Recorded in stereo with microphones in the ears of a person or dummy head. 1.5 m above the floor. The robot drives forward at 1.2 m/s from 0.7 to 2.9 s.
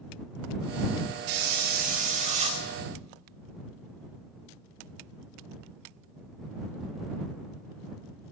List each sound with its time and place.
1.3 s a hiss: 60° right (ahead or behind), 1.5 m; by 2.6 s 35° right (ahead or behind), 2.5 m